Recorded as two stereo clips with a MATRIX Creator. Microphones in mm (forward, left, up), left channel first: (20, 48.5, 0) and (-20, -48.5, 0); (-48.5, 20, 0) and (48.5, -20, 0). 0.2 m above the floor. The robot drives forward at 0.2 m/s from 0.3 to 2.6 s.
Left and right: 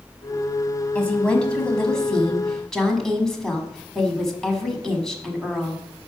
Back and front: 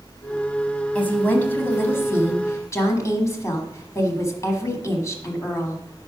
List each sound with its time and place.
0.9 s a woman speaking: 120° left, 1.1 m; by 5.8 s 145° left, 1.2 m